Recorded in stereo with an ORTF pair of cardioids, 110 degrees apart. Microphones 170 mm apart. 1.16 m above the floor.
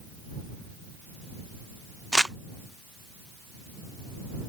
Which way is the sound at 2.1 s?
5° right.